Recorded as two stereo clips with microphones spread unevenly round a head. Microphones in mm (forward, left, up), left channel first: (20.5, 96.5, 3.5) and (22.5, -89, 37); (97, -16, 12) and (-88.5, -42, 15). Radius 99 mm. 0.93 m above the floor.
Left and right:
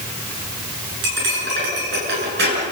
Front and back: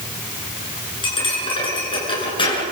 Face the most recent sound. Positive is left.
turn(degrees=-55)